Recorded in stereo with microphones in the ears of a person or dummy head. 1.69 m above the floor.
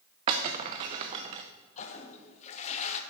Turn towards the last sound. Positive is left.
turn(degrees=40)  # may be behind; listen again after turning